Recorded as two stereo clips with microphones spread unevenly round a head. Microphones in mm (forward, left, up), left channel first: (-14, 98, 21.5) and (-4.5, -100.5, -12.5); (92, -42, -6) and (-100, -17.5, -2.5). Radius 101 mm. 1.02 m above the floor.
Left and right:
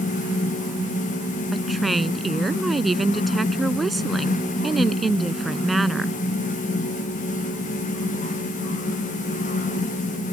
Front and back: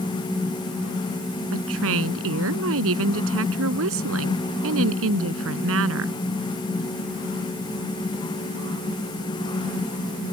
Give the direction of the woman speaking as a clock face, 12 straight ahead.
6 o'clock.